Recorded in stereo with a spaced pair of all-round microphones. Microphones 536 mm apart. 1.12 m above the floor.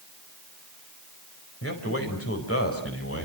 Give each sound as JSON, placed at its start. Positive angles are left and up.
{"t": 1.6, "sound": "a man speaking", "side_deg": 25, "distance_m": 5.0}